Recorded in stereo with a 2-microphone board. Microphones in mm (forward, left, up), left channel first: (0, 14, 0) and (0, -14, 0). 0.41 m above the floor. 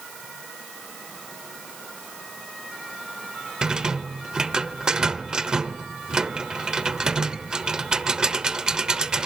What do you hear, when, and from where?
3.6 s a rattle: 25° right (ahead or behind), 1.0 m